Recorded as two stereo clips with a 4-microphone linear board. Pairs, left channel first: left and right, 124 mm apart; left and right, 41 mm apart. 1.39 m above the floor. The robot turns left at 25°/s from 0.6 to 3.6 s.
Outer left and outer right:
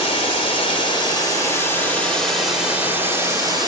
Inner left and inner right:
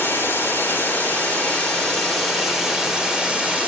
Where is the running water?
45° left, 4 m; by 3.7 s 30° right, 4 m.